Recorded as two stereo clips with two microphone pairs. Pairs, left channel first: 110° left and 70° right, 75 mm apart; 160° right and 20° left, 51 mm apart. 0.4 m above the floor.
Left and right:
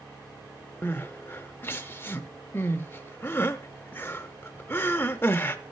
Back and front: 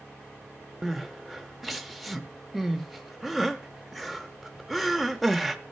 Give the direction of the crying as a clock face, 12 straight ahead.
8 o'clock.